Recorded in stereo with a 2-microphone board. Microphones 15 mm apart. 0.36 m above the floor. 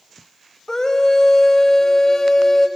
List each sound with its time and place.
0.7 s a scream: 35° left (ahead or behind), 1.4 m